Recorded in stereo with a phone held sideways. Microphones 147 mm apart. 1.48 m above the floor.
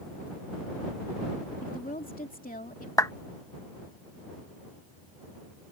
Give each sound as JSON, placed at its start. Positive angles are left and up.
{"t": 1.6, "sound": "a woman speaking", "side_deg": 75}
{"t": 3.0, "sound": "a clap", "side_deg": 25}